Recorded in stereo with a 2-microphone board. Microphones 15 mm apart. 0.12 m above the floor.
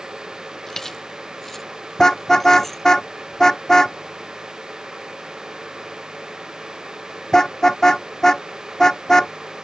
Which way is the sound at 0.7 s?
25° left (ahead or behind).